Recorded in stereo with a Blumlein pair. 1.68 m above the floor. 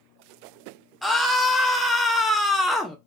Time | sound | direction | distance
1.0 | a scream | 5° left | 0.5 m